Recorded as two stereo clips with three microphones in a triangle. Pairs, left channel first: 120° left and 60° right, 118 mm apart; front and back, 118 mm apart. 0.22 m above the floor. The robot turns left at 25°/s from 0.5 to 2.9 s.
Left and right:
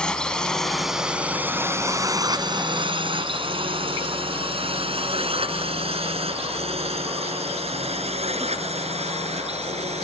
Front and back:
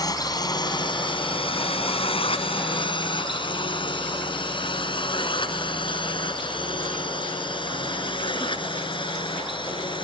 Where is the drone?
40° left; by 10.0 s 45° right.